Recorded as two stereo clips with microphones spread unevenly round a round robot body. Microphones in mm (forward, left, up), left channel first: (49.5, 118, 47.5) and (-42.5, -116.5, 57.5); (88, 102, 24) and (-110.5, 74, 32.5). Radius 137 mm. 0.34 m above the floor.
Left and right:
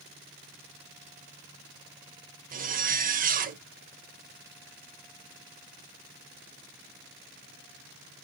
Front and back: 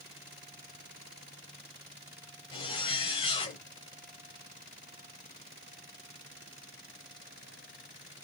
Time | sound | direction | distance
2.5 | a zipper | 55° right | 0.6 m